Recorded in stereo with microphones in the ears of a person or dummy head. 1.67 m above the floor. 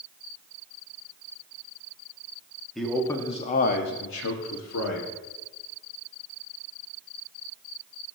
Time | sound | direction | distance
2.8 | a man speaking | centre (ahead or behind) | 1.1 m